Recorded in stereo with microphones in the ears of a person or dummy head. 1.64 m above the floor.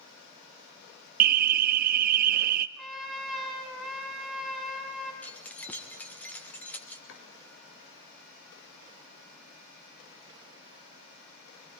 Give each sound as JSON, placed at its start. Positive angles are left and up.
{"t": 1.2, "sound": "an alarm", "side_deg": -45, "distance_m": 0.7}
{"t": 2.8, "sound": "a trumpet", "side_deg": -5, "distance_m": 5.0}
{"t": 5.2, "sound": "keys jangling", "side_deg": 5, "distance_m": 1.0}
{"t": 7.1, "sound": "chopping", "side_deg": 65, "distance_m": 4.5}